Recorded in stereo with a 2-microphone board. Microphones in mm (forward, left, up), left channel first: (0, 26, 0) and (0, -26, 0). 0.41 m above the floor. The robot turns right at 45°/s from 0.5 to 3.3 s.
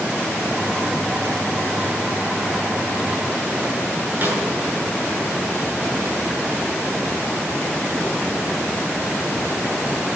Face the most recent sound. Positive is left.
turn(degrees=-40)  # may be behind; listen again after turning